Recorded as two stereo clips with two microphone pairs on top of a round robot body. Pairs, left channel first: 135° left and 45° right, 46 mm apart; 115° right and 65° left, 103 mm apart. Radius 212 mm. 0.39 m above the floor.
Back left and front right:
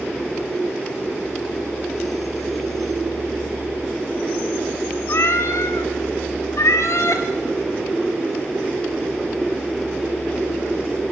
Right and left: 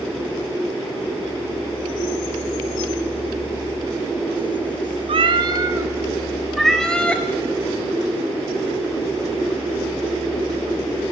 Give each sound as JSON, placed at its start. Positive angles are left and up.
{"t": 5.1, "sound": "a cat meowing", "azimuth_deg": 100, "distance_m": 0.8}